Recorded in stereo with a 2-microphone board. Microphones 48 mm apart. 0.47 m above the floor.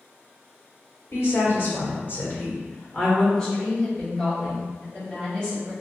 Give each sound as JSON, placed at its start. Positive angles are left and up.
{"t": 1.1, "sound": "a woman speaking", "side_deg": 60, "distance_m": 1.9}
{"t": 3.4, "sound": "a woman speaking", "side_deg": 5, "distance_m": 1.9}